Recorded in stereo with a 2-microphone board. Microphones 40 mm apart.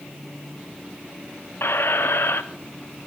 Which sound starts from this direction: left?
A squeak, at 1.6 s.